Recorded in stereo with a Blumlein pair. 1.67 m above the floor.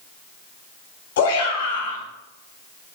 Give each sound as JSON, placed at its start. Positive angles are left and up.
{"t": 1.2, "sound": "a shout", "azimuth_deg": 55, "distance_m": 3.5}